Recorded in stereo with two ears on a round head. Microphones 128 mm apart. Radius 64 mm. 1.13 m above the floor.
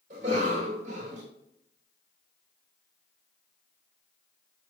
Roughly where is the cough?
Right.